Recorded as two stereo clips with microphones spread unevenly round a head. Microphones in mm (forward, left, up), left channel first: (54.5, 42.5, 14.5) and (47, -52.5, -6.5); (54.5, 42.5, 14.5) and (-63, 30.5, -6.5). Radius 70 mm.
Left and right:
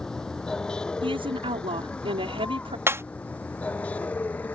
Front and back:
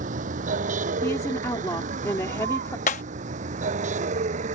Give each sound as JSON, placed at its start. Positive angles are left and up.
{"t": 0.0, "sound": "a vehicle", "azimuth_deg": 170}
{"t": 1.0, "sound": "a woman speaking", "azimuth_deg": -65}
{"t": 2.9, "sound": "breaking glass", "azimuth_deg": -25}